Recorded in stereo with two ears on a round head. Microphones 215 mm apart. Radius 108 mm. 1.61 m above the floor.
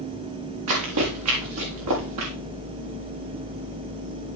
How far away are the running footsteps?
About 6 m.